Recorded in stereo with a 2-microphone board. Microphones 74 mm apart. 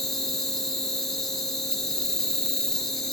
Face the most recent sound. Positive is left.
turn(degrees=5)  # may be behind; listen again after turning